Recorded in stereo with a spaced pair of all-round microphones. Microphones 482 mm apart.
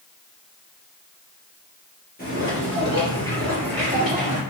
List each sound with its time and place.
2.2 s footsteps: 20° left (ahead or behind), 1.9 m; by 4.4 s centre (ahead or behind), 2.5 m